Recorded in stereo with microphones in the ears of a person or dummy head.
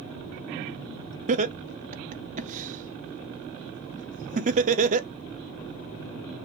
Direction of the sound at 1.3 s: 40° right (ahead or behind).